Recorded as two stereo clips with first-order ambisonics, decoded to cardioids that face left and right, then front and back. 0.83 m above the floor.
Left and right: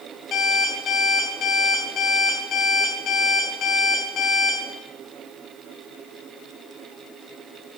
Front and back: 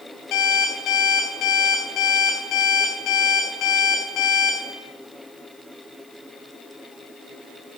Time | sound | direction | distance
0.3 | an alarm clock | 35° left | 3 m